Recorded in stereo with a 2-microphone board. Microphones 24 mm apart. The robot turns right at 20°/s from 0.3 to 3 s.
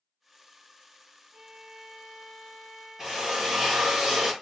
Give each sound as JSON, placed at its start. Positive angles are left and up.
{"t": 1.3, "sound": "a violin", "azimuth_deg": -115, "distance_m": 0.9}
{"t": 3.0, "sound": "a drill", "side_deg": -15, "distance_m": 0.9}